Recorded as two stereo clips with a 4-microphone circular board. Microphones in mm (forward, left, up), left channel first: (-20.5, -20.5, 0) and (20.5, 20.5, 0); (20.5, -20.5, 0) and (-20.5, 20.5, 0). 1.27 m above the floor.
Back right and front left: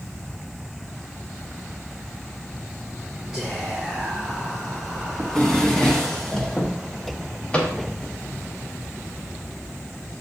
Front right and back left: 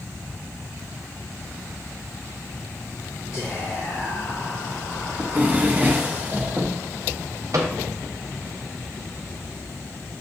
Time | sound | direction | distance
3.3 | whispering | 55° right | 1.1 m
5.2 | a drawer | 155° left | 0.7 m
7.5 | a microwave | 155° left | 0.6 m